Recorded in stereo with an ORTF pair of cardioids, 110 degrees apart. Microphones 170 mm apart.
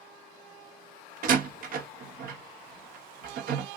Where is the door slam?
50° right, 1.1 m.